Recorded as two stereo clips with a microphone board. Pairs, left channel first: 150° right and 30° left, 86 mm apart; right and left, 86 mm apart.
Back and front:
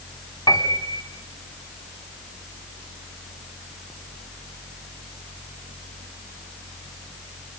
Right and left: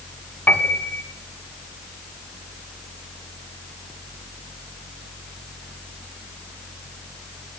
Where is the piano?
155° right, 1.7 m.